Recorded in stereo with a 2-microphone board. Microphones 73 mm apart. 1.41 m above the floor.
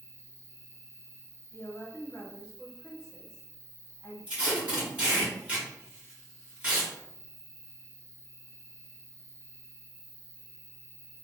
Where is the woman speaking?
45° left (ahead or behind), 0.8 m.